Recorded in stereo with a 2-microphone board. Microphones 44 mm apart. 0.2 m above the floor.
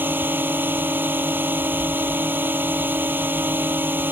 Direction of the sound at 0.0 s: 50° right (ahead or behind).